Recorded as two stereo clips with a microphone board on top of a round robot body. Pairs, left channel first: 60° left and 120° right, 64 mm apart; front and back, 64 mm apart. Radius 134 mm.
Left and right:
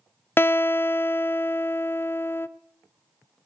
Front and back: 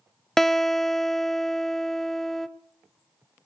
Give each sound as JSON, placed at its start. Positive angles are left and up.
{"t": 0.4, "sound": "a guitar", "azimuth_deg": 80, "distance_m": 0.5}